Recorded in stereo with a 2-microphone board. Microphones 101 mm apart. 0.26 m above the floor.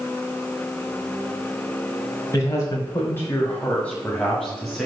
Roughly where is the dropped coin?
No dropped coin in this recording.